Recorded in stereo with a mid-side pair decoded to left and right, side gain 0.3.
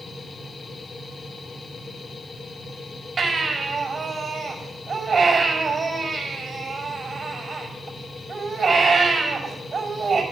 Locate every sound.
0.0 s a machine running: 55° left, 1.8 m
3.2 s a baby crying: 50° right, 6 m